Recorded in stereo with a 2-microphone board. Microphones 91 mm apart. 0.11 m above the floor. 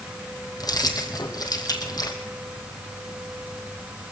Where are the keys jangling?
50° left (ahead or behind), 2.5 m.